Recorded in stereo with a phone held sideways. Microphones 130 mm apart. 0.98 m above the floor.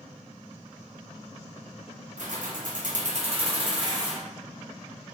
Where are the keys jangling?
65° right (ahead or behind), 0.6 m; by 4.2 s 25° right (ahead or behind), 1.1 m.